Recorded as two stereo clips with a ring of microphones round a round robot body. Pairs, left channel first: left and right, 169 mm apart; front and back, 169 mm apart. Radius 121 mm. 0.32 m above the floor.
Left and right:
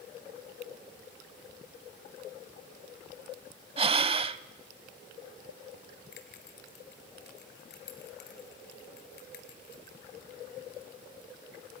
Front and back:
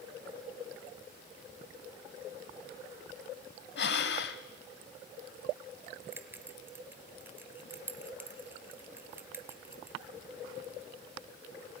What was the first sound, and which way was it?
Breathing, 30° right.